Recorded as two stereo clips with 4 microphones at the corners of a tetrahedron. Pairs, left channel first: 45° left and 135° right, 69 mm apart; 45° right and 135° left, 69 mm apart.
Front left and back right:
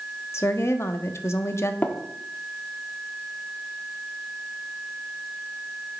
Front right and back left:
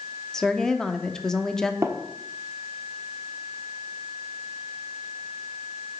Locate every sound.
0.3 s a woman speaking: 30° left, 0.8 m
1.8 s tapping: 100° left, 1.0 m